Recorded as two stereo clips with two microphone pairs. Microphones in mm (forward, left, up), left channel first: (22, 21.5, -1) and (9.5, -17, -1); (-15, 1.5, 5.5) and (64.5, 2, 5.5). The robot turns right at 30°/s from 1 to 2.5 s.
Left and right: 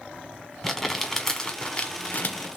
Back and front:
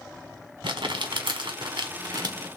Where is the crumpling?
5° right, 1.1 m; by 2.6 s 40° left, 1.1 m.